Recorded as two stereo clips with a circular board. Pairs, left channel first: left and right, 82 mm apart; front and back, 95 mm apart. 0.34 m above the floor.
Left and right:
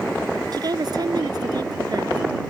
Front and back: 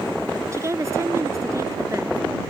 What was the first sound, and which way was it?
A woman speaking, 120° right.